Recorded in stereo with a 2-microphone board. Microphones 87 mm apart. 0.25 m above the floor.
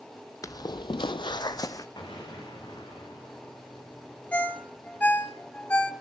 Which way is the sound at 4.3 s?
20° left (ahead or behind).